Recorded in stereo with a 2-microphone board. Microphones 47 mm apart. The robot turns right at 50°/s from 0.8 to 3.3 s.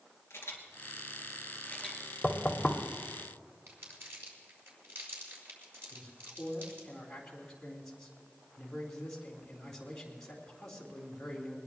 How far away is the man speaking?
About 3.5 m.